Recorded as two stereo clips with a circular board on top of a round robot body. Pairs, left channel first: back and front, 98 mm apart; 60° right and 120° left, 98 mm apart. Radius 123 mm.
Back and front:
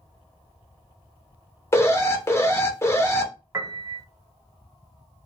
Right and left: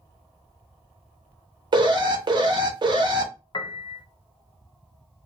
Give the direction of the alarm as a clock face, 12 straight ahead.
8 o'clock.